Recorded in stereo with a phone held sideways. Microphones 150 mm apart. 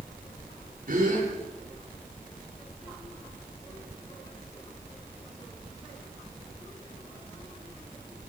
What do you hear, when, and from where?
0.9 s a gasp: 75° right (ahead or behind), 10 m